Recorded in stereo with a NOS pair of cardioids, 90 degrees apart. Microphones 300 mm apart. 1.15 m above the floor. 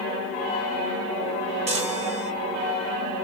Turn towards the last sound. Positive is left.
turn(degrees=-20)